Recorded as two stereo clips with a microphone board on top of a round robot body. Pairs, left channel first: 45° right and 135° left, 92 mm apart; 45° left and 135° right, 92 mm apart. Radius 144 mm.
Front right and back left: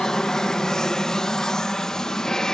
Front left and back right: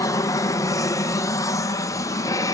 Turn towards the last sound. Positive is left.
turn(degrees=35)